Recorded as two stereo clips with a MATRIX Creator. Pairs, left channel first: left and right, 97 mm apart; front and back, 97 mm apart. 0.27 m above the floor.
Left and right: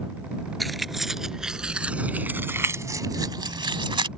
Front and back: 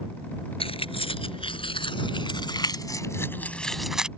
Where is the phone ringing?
I don't hear a phone ringing.